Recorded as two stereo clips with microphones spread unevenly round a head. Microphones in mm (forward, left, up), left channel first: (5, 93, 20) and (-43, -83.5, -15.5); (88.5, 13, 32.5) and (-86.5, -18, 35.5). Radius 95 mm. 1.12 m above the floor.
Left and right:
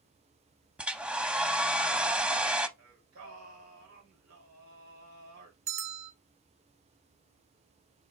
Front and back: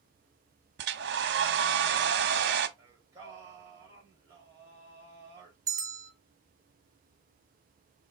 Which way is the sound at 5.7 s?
100° right.